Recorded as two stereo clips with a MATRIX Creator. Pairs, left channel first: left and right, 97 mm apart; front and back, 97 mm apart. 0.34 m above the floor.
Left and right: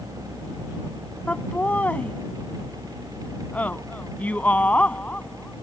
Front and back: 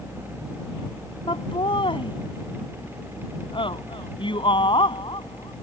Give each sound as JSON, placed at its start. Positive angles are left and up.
{"t": 1.3, "sound": "laughter", "azimuth_deg": 15}